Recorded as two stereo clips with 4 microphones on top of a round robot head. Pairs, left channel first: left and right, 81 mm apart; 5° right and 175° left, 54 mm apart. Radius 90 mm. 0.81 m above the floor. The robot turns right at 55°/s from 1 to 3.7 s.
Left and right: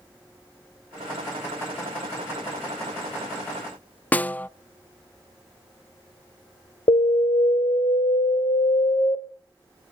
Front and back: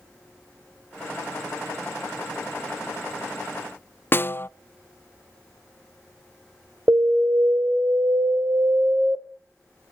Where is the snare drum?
25° left, 0.5 m.